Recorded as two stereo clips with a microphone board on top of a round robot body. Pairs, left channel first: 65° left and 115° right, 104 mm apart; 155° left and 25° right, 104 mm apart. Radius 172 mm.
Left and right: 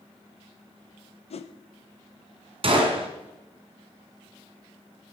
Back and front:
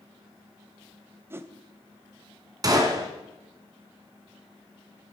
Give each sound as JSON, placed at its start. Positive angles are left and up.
{"t": 1.3, "sound": "a whoosh", "azimuth_deg": 45, "distance_m": 0.7}
{"t": 2.6, "sound": "a gunshot", "azimuth_deg": -80, "distance_m": 2.0}